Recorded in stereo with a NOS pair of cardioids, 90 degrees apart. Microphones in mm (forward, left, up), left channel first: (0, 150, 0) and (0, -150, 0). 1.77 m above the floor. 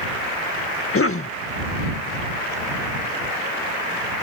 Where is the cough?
45° left.